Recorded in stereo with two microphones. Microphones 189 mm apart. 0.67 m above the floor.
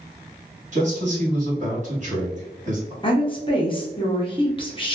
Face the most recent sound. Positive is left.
turn(degrees=30)  # may be behind; listen again after turning